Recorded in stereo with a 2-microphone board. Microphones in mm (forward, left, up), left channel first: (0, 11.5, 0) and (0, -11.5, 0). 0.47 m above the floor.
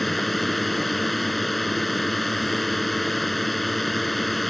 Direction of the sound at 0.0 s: 10° left (ahead or behind).